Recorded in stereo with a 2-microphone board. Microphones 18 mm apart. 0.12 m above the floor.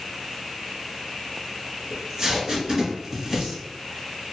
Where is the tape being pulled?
35° right (ahead or behind), 1.8 m.